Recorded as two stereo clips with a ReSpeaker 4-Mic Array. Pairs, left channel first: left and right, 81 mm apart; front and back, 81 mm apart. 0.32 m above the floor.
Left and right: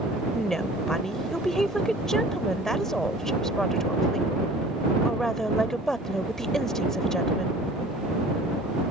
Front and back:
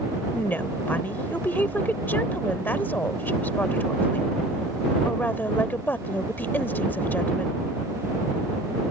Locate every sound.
0.3 s a woman speaking: 10° left